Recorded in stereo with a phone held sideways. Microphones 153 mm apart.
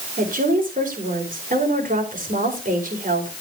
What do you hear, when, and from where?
0.2 s a woman speaking: 65° right (ahead or behind), 4.5 m